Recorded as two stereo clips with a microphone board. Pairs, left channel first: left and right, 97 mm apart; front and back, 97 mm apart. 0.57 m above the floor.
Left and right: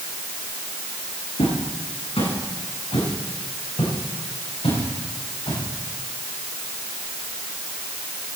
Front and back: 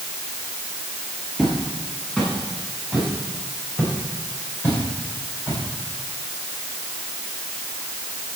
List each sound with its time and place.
1.4 s footsteps: 85° left, 6.5 m; by 5.6 s 60° left, 8 m